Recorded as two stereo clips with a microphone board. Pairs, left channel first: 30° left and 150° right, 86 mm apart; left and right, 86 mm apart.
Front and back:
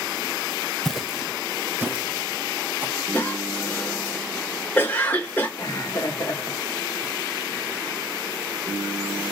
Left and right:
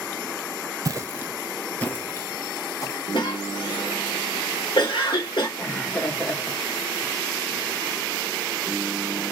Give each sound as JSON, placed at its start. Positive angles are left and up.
{"t": 0.8, "sound": "footsteps", "azimuth_deg": -55, "distance_m": 0.8}
{"t": 3.1, "sound": "a cough", "azimuth_deg": 95, "distance_m": 1.9}
{"t": 5.6, "sound": "laughter", "azimuth_deg": 35, "distance_m": 1.6}